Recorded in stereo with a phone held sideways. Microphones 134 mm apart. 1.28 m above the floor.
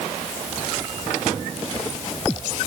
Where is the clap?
I don't hear a clap.